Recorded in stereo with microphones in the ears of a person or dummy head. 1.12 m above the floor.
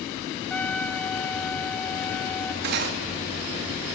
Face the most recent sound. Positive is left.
turn(degrees=-55)  # may be behind; listen again after turning